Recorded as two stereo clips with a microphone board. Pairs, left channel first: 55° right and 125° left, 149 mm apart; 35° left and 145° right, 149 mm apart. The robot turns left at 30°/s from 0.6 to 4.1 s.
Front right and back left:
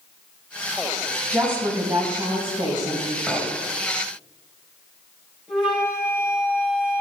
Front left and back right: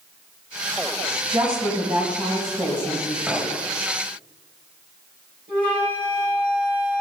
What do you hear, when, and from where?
1.3 s a woman speaking: 170° right, 1.8 m; by 3.2 s 135° left, 1.8 m
3.3 s a clink: 145° left, 1.0 m; by 3.5 s 135° left, 1.0 m
5.5 s a flute: 35° left, 3.5 m